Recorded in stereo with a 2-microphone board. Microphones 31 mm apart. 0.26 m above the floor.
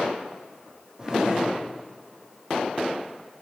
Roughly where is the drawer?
Centre.